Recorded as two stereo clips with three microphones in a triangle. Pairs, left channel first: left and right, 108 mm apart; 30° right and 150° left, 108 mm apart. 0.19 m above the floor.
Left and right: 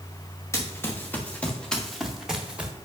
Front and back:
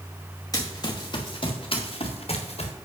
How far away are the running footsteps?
About 2.5 m.